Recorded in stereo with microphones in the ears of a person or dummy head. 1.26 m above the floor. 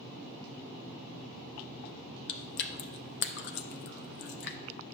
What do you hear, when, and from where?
2.3 s chewing: 60° left (ahead or behind), 0.6 m